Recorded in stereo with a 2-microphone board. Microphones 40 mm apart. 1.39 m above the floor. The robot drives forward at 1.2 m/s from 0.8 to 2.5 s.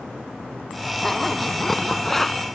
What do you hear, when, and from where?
1.0 s a zipper: 5° left (ahead or behind)